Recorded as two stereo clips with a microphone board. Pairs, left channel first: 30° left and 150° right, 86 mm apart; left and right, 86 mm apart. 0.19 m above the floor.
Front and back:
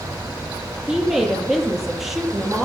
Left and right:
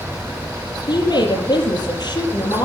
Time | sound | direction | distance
0.9 | a woman speaking | 120° left | 5.5 m